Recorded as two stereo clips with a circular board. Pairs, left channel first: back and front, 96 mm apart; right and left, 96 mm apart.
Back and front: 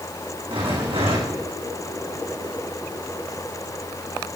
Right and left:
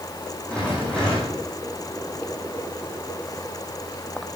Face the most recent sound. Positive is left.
turn(degrees=-15)